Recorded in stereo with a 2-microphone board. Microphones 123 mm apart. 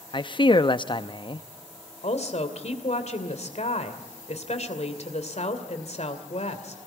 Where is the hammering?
No hammering in this recording.